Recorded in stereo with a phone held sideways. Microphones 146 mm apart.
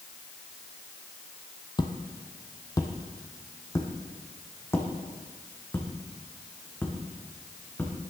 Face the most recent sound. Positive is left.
turn(degrees=10)  # may be behind; listen again after turning